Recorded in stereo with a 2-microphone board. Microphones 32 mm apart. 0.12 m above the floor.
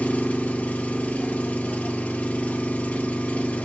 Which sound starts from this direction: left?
An engine running, at 0.0 s.